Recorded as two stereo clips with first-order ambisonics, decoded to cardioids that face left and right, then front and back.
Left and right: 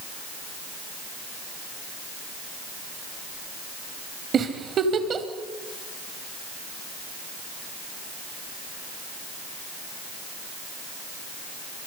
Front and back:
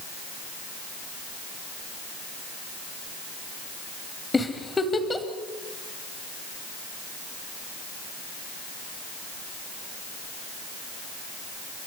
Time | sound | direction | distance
4.3 | a giggle | 65° right | 1.3 m